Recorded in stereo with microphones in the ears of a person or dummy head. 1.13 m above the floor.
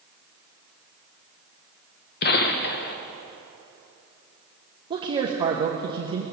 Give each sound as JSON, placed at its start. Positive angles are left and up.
{"t": 2.2, "sound": "a gunshot", "side_deg": 50, "distance_m": 0.9}
{"t": 4.9, "sound": "a man speaking", "side_deg": -25, "distance_m": 1.1}